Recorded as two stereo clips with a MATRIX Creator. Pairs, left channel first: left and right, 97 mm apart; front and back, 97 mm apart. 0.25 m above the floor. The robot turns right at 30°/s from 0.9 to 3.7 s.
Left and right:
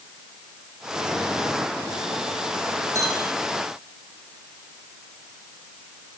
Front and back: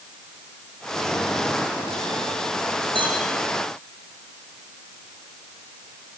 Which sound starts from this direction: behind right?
A clink, at 3.0 s.